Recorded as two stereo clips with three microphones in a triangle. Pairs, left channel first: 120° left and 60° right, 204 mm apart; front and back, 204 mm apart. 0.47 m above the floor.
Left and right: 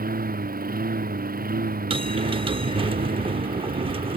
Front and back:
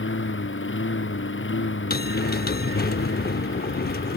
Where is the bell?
5° right.